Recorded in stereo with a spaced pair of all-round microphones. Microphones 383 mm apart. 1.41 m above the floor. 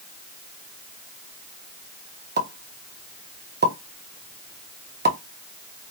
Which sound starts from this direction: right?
A pop, at 2.4 s.